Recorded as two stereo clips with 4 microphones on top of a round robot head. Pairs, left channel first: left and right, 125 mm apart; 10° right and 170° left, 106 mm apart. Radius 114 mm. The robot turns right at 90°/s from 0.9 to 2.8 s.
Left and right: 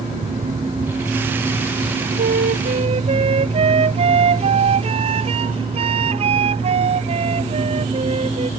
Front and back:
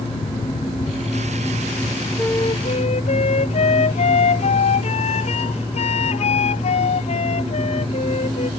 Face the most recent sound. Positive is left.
turn(degrees=-40)